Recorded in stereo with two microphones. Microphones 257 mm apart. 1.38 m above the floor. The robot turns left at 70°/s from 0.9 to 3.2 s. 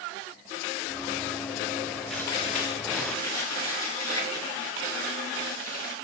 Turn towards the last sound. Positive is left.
turn(degrees=100)